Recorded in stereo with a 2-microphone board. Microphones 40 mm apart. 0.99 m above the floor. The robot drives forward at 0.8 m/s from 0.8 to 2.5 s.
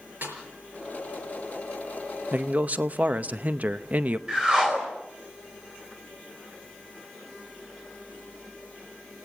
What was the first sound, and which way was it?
A snare drum, 50° right (ahead or behind).